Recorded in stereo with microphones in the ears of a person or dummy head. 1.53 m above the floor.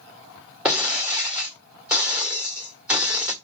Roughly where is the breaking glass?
Centre.